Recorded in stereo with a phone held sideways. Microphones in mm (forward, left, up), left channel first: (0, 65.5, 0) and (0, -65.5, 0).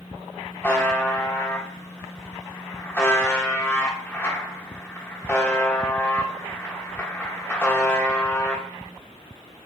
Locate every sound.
0.6 s a buzzer: 20° left (ahead or behind), 1.0 m